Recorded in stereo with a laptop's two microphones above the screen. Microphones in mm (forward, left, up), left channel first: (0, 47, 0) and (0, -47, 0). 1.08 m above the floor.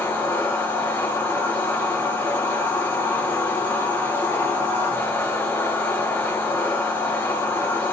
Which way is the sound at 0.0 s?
25° left (ahead or behind).